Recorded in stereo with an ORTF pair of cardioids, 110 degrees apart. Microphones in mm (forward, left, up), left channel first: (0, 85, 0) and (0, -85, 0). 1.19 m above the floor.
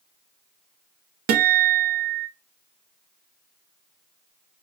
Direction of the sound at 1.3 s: 65° right.